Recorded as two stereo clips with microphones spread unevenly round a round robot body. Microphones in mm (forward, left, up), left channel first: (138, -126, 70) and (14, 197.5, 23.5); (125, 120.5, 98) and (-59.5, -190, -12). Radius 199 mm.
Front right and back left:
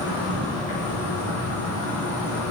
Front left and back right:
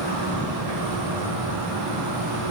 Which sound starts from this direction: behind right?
An insect, at 0.0 s.